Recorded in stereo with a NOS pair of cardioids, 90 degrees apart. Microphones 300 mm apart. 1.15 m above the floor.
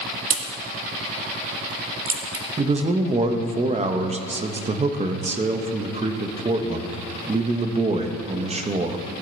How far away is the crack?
About 1.6 m.